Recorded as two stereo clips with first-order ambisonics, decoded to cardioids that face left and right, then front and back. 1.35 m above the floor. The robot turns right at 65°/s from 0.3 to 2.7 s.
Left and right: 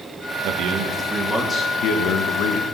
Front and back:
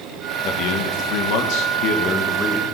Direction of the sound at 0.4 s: 50° right.